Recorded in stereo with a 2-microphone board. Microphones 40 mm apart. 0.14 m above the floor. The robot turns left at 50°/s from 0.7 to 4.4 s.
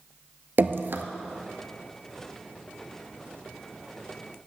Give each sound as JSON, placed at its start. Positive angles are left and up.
{"t": 0.6, "sound": "dripping", "side_deg": -60, "distance_m": 0.6}